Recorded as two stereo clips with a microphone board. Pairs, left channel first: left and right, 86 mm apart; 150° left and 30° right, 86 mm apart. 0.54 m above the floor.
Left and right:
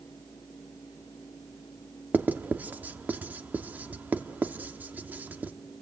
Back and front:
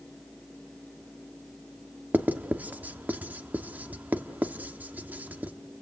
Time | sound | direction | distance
2.1 | writing | 65° right | 1.1 m